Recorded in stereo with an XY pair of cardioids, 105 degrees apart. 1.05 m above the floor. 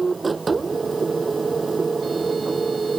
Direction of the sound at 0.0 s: 25° right.